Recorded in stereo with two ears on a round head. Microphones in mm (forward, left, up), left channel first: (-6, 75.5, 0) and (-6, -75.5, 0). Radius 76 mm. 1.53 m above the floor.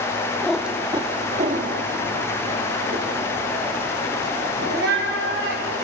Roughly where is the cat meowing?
Centre.